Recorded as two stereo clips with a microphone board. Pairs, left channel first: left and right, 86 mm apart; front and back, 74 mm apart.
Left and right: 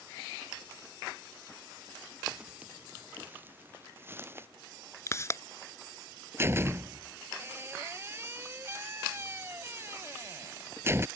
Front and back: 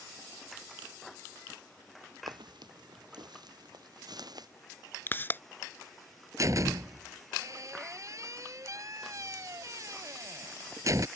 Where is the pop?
50° left.